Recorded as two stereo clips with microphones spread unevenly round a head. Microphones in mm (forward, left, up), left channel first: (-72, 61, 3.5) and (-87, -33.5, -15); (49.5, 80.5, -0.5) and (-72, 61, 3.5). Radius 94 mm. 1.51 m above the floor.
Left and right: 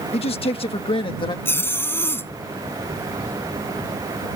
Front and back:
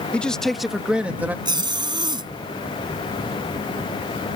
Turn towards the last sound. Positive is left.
turn(degrees=140)